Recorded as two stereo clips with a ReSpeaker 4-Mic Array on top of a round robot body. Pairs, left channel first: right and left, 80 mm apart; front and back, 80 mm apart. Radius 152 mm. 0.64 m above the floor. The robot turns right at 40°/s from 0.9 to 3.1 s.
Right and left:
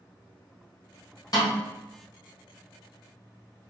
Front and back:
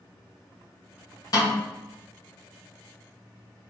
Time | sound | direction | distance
1.3 | a snare drum | 45° right | 1.6 m